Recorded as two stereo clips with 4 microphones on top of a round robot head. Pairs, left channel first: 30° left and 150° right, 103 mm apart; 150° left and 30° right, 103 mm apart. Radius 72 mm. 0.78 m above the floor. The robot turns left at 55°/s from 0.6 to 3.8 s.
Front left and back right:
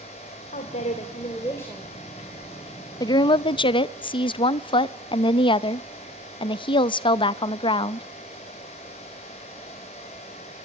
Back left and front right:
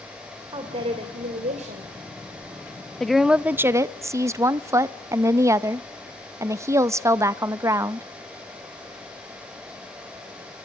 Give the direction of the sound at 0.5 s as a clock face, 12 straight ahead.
11 o'clock.